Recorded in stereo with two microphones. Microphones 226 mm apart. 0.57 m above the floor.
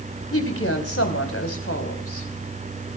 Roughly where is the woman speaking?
Left.